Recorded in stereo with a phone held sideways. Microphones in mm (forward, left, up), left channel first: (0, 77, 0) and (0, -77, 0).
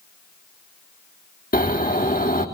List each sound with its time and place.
1.5 s snoring: 65° left (ahead or behind), 3.5 m